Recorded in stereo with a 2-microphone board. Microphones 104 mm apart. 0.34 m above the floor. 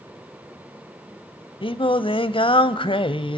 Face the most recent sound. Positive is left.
turn(degrees=60)  # may be behind; listen again after turning